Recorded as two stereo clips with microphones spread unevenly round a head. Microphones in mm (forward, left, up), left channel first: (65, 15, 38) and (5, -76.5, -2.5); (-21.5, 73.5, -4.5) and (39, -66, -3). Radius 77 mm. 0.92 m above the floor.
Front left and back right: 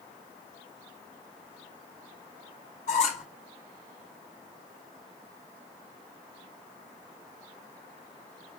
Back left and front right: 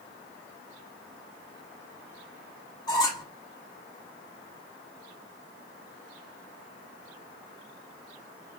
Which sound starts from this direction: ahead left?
A squeak, at 2.9 s.